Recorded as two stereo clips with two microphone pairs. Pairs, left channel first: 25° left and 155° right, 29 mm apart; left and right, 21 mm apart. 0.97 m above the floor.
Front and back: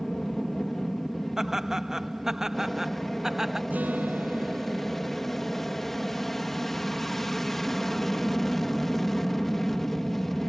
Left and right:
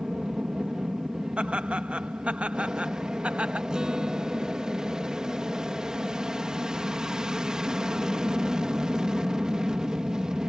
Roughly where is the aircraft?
Ahead right.